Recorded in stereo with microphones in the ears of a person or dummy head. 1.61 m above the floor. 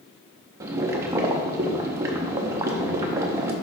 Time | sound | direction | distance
0.6 | boiling | 20° right (ahead or behind) | 0.7 m